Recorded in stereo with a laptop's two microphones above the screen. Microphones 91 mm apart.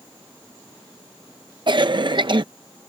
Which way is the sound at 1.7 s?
60° right (ahead or behind).